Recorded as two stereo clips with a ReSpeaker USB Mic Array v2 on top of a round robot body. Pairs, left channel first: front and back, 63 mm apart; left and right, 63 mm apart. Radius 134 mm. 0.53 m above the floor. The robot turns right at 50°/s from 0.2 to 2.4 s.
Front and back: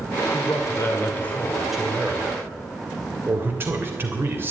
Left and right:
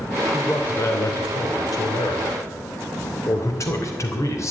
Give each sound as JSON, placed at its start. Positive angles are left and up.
{"t": 0.3, "sound": "a man speaking", "azimuth_deg": 25, "distance_m": 3.0}